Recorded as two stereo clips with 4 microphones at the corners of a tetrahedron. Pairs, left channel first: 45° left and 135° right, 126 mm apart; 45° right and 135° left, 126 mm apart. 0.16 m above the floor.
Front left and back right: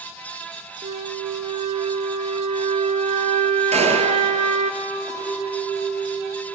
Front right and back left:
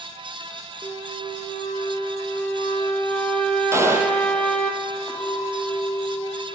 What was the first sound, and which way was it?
A flute, 125° right.